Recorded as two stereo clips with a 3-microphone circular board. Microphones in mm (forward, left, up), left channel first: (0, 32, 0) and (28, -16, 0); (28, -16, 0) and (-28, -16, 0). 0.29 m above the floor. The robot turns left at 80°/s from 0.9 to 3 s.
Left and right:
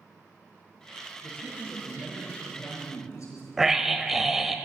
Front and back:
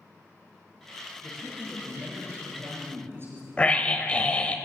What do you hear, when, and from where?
1.2 s a man speaking: 85° right, 5.5 m; by 4.2 s 135° left, 5.5 m
3.6 s a scream: 15° left, 1.0 m